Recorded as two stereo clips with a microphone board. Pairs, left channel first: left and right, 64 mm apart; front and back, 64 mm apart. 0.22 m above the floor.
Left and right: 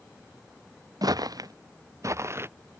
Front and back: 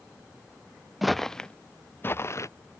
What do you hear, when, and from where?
1.0 s footsteps: 90° right; by 2.5 s 40° right